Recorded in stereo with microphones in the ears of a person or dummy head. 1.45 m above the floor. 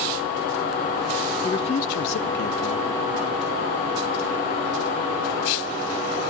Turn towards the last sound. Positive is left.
turn(degrees=55)  # may be behind; listen again after turning